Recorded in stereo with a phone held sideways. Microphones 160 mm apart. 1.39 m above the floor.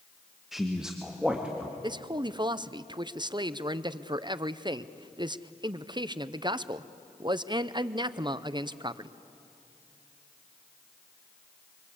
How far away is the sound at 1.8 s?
About 0.6 m.